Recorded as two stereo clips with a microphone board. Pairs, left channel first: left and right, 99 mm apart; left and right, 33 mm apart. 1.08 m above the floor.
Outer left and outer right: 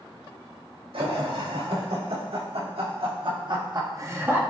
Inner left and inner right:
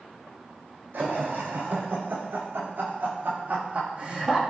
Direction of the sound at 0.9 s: 80° right.